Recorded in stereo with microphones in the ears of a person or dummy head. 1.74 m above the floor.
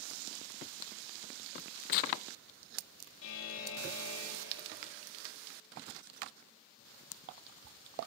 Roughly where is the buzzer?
Left.